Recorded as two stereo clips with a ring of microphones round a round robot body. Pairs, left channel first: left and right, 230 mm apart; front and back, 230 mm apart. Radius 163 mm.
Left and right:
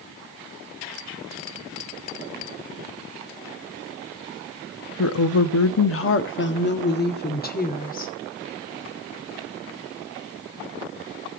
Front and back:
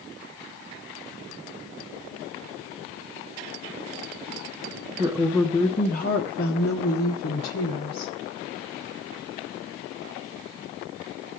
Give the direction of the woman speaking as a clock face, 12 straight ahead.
8 o'clock.